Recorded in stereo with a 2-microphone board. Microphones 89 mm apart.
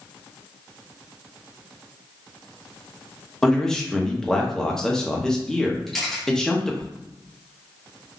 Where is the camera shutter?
5° left (ahead or behind), 1.0 m.